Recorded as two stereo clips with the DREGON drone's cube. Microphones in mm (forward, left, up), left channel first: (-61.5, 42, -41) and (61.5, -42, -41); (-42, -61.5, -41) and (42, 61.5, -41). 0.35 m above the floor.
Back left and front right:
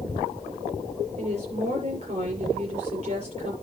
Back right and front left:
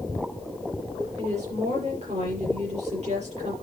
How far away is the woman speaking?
About 6 m.